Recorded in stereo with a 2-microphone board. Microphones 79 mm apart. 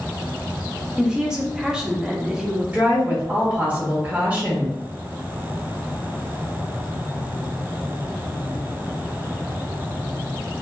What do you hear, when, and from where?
1.0 s a woman speaking: 10° right (ahead or behind), 0.6 m
2.7 s a woman speaking: 20° right (ahead or behind), 0.7 m